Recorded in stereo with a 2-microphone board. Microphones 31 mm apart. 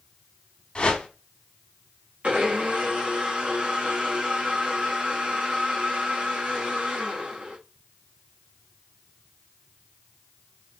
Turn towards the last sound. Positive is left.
turn(degrees=-45)  # may be behind; listen again after turning